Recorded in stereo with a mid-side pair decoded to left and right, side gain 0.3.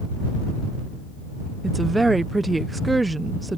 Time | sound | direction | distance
1.6 | a woman speaking | 30° right | ?